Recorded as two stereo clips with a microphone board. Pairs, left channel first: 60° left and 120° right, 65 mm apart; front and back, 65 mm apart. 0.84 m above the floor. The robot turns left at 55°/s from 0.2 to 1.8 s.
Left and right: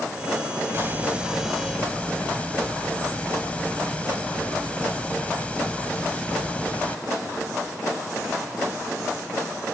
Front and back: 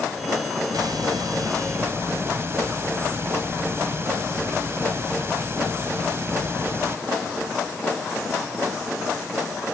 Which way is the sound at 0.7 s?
170° right.